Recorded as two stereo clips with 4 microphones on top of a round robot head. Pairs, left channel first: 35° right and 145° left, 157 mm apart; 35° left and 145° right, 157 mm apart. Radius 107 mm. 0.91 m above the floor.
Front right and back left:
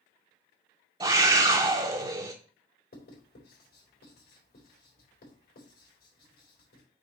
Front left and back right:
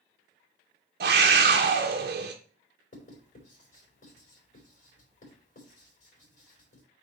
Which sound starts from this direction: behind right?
A scream, at 1.0 s.